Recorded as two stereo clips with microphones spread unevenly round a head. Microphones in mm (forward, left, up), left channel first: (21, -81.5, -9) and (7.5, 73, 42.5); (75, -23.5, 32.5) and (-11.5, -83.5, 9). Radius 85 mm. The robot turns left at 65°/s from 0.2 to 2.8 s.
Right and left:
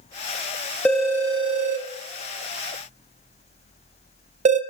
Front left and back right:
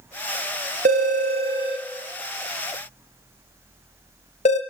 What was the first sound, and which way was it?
A phone ringing, 175° right.